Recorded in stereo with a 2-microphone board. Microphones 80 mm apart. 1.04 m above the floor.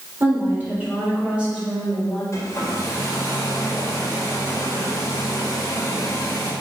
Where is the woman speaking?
30° right (ahead or behind), 3.5 m; by 2.2 s 5° right (ahead or behind), 5 m.